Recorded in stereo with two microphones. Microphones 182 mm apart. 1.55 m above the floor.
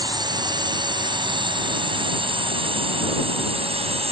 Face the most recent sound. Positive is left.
turn(degrees=-35)  # may be behind; listen again after turning